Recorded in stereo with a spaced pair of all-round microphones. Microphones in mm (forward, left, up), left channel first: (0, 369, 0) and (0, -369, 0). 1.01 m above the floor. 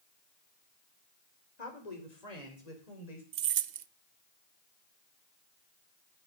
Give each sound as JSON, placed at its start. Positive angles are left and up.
{"t": 1.6, "sound": "a woman speaking", "side_deg": 75, "distance_m": 3.0}
{"t": 3.3, "sound": "keys jangling", "side_deg": -90, "distance_m": 0.6}